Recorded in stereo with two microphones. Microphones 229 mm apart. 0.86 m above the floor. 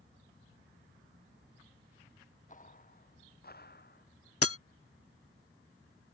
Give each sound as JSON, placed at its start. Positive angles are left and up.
{"t": 2.5, "sound": "footsteps", "side_deg": 35}
{"t": 4.4, "sound": "breaking glass", "side_deg": 80}